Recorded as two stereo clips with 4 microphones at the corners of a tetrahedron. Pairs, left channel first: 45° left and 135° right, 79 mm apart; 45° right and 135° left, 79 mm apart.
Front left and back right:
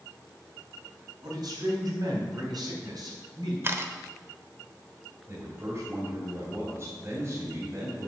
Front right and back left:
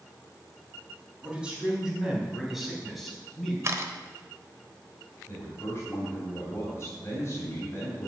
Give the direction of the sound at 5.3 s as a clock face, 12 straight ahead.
3 o'clock.